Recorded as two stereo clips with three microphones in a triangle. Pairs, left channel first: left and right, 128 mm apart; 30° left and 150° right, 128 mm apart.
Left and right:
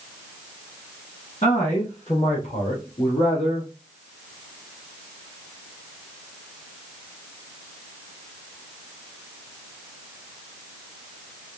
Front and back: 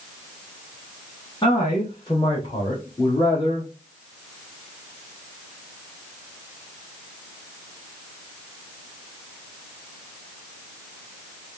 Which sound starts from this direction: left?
A man speaking, at 1.4 s.